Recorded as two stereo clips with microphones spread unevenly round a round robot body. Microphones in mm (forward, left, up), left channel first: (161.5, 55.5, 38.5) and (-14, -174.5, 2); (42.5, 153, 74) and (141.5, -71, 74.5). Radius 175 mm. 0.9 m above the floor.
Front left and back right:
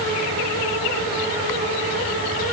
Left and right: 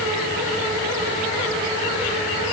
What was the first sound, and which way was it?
Only background noise.